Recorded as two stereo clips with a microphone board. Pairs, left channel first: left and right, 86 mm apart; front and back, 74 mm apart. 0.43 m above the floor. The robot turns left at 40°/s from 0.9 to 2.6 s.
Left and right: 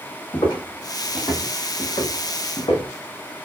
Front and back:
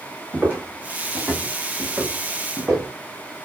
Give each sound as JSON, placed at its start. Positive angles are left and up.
{"t": 0.3, "sound": "footsteps", "azimuth_deg": 110, "distance_m": 1.3}